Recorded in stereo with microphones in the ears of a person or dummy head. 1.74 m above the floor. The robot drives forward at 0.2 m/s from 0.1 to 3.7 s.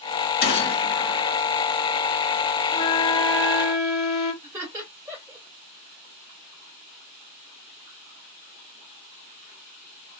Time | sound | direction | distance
0.4 | a gunshot | 55° left (ahead or behind) | 1.4 m
2.7 | a flute | 30° left (ahead or behind) | 1.3 m
4.4 | laughter | 15° right (ahead or behind) | 1.8 m